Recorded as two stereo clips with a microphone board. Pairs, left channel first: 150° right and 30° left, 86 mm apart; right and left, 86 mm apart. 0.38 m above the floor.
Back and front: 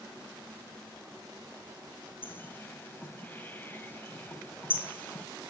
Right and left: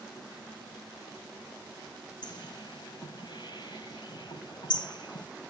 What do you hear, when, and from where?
2.2 s a bird: 90° right, 1.9 m